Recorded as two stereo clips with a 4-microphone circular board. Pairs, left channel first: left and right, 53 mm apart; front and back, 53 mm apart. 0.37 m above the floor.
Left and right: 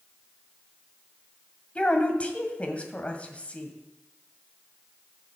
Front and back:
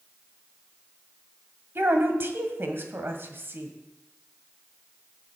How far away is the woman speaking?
About 1.7 m.